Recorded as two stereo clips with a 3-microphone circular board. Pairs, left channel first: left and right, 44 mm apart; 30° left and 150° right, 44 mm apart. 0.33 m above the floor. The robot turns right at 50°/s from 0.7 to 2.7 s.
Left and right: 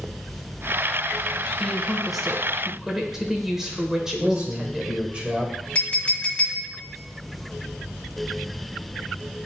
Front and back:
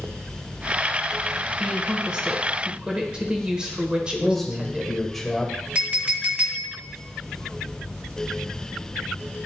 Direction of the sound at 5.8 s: 150° left.